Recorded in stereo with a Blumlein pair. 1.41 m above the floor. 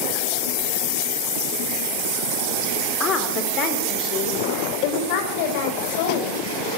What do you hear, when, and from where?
3.0 s a woman speaking: 25° left, 4 m; by 6.4 s 50° left, 6.5 m